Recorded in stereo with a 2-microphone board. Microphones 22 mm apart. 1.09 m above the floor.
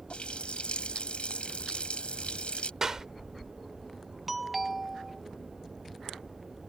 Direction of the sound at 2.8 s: 30° right (ahead or behind).